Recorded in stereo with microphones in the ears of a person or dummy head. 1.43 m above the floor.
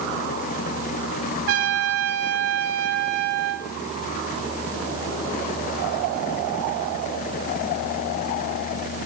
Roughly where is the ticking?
I don't hear ticking.